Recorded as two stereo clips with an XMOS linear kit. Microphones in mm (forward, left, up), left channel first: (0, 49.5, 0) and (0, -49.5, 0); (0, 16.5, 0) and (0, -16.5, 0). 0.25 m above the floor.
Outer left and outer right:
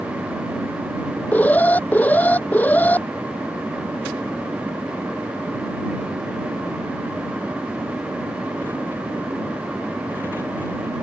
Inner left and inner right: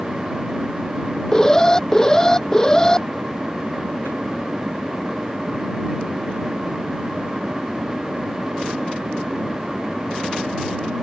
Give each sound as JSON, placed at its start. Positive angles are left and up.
{"t": 1.3, "sound": "an alarm", "side_deg": 15}